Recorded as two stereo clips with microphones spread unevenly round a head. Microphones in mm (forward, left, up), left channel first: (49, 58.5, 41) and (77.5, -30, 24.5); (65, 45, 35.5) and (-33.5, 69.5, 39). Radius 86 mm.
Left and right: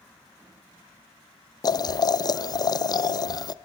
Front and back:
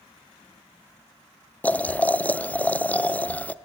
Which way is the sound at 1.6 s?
60° left.